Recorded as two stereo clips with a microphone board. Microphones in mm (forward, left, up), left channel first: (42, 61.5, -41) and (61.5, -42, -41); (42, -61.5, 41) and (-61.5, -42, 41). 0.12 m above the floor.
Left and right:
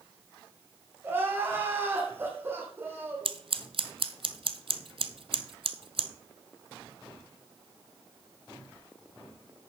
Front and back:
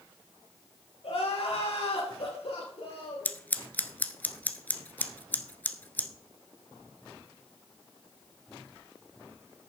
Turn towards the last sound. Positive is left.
turn(degrees=-85)